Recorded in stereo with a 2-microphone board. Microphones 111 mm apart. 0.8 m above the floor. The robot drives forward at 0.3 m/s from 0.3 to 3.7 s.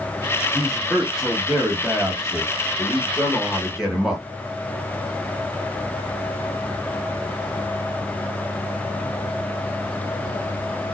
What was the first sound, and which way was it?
A man speaking, 5° right (ahead or behind).